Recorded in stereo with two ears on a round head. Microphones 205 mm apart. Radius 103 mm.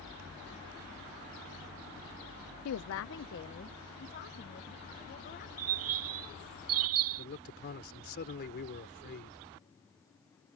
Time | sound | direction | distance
2.6 | a woman speaking | 65° left (ahead or behind) | ?
5.6 | a bird | 60° right (ahead or behind) | ?
7.2 | a man speaking | 40° left (ahead or behind) | ?